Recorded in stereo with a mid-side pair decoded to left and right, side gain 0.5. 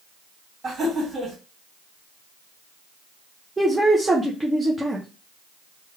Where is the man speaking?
15° right, 0.7 m.